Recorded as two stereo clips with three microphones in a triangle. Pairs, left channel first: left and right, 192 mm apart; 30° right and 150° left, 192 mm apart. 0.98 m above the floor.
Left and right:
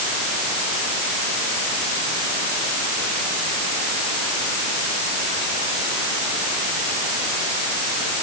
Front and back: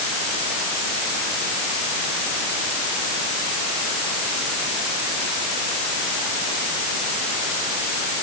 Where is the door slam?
I don't hear a door slam.